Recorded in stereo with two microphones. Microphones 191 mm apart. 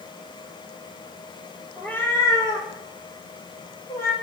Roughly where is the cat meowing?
Centre.